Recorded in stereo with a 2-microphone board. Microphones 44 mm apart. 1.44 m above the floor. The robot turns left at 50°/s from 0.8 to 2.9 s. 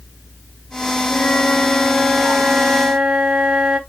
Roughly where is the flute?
Ahead left.